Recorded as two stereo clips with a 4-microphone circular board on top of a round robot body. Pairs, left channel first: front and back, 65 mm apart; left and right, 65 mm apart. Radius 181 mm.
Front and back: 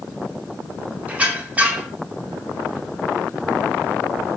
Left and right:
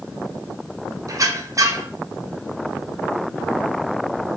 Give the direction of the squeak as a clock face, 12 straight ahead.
4 o'clock.